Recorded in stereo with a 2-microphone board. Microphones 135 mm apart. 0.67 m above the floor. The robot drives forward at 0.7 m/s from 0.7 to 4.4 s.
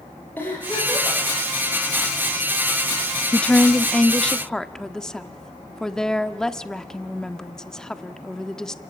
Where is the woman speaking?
10° left (ahead or behind), 0.6 m; by 8.8 s 5° left (ahead or behind), 1.1 m.